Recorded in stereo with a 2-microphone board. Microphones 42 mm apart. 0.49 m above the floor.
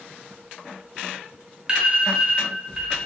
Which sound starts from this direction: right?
An alarm, at 1.7 s.